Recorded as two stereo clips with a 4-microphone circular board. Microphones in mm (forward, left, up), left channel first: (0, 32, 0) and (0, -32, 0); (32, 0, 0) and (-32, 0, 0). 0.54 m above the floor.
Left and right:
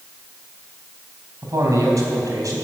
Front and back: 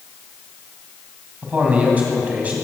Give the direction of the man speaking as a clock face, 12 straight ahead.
4 o'clock.